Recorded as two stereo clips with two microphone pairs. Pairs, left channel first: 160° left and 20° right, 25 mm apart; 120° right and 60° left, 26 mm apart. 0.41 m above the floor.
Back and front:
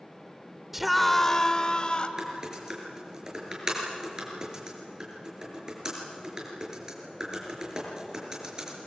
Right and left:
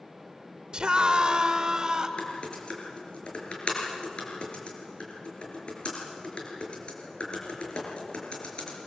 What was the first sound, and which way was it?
A scream, 55° left.